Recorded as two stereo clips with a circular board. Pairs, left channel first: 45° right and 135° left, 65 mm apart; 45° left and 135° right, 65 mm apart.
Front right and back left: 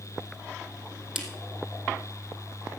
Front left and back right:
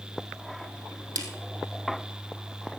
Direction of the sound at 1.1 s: 140° right.